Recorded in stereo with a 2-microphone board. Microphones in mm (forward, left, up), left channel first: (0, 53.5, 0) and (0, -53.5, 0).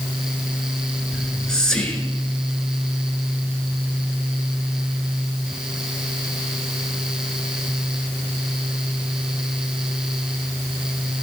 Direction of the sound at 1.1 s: 5° left (ahead or behind).